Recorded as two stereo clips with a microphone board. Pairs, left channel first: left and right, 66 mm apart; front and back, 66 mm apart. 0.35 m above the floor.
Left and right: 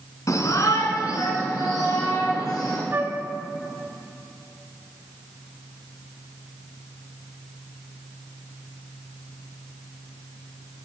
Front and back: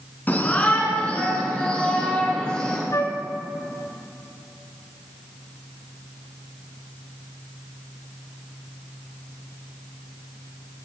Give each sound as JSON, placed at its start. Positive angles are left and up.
{"t": 0.3, "sound": "a shout", "azimuth_deg": 60, "distance_m": 3.0}
{"t": 2.9, "sound": "a flute", "azimuth_deg": -35, "distance_m": 1.1}